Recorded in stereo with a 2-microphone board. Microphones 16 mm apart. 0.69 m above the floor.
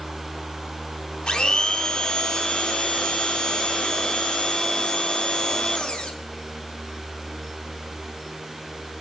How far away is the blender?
About 0.7 m.